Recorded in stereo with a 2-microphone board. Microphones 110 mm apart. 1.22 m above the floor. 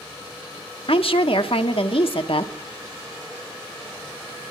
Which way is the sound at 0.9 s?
65° left (ahead or behind).